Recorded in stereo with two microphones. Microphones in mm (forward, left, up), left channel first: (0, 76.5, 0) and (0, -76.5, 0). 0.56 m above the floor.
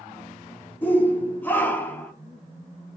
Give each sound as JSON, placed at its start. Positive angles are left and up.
{"t": 0.8, "sound": "a shout", "side_deg": 10, "distance_m": 0.9}